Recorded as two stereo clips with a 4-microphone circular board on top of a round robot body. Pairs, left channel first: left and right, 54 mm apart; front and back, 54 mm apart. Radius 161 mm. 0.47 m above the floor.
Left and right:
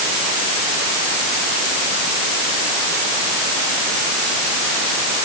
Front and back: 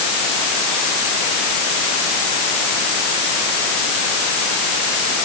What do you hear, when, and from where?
Only background noise.